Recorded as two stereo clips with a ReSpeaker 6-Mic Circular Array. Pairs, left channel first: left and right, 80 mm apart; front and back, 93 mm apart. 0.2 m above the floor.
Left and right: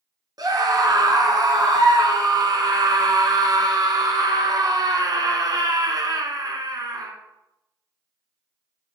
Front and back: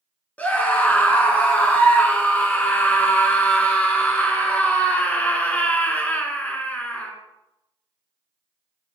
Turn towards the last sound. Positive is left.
turn(degrees=-70)